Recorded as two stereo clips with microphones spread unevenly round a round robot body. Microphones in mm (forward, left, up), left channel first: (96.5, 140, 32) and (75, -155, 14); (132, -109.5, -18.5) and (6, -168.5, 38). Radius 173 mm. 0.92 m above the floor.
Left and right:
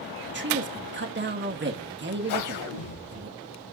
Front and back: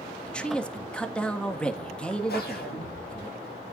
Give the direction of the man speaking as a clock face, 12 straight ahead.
2 o'clock.